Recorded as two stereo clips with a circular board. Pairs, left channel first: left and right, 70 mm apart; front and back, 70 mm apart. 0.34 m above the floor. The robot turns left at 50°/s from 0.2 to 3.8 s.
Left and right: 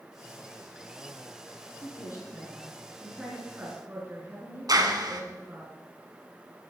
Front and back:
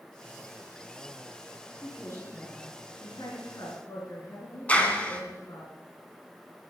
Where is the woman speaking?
65° left, 5 m; by 5.7 s 35° right, 5 m.